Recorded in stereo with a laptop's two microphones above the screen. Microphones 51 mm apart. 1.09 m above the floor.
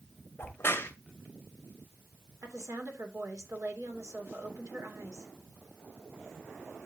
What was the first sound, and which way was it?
A crack, 45° left (ahead or behind).